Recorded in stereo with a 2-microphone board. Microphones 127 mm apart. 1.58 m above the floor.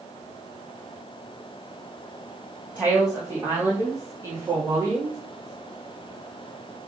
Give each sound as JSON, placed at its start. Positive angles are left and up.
{"t": 2.8, "sound": "a woman speaking", "side_deg": -10, "distance_m": 3.0}